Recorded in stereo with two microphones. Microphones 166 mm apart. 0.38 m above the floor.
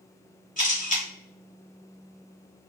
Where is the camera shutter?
50° left (ahead or behind), 1.4 m.